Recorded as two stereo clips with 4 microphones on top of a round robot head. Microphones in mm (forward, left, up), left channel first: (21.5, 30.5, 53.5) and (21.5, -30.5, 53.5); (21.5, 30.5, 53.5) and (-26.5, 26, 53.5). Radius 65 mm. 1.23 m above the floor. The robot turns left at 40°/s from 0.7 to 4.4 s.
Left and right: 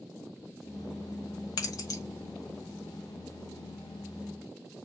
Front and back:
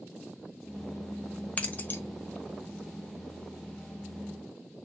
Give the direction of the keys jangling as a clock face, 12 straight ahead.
10 o'clock.